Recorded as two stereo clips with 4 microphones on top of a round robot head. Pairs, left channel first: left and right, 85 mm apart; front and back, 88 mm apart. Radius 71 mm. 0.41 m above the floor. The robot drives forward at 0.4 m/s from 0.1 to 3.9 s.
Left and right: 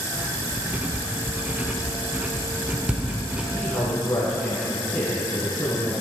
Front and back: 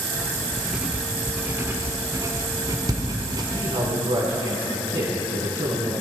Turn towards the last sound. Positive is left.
turn(degrees=160)